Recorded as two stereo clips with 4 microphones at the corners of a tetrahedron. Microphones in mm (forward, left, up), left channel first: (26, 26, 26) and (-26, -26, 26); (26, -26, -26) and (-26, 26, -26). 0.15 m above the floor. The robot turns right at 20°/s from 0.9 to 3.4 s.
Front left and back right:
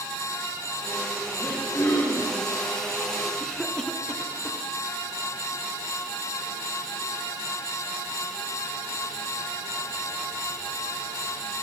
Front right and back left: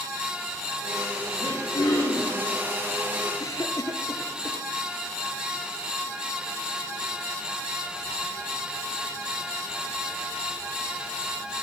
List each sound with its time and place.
1.4 s throat clearing: 35° right, 7 m; by 2.4 s 15° right, 7 m
3.4 s a cough: 35° right, 2 m